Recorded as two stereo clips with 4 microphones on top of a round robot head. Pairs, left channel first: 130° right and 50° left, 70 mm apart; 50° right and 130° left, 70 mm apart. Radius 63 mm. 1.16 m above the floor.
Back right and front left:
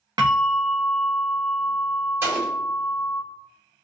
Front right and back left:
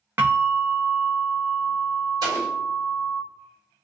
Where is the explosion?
110° left, 1.3 m.